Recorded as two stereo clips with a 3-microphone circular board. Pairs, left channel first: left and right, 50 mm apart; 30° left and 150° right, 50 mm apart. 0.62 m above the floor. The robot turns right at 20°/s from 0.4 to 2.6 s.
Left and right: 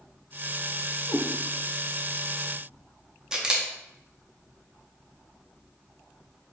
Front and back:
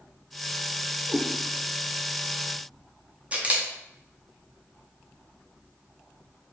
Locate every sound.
1.1 s a cat meowing: 140° left, 1.0 m
3.3 s a camera shutter: 145° right, 0.6 m